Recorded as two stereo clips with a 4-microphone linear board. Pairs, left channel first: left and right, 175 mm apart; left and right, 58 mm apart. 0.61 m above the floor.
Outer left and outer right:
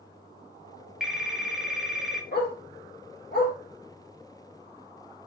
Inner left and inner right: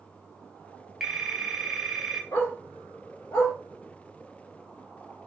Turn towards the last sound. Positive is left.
turn(degrees=75)  # may be behind; listen again after turning